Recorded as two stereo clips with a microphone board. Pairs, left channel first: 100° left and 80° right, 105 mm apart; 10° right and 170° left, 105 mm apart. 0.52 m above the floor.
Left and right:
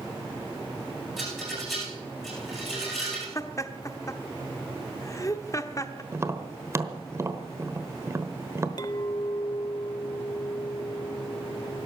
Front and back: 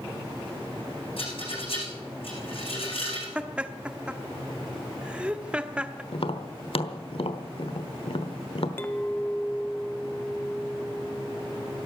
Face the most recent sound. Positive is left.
turn(degrees=55)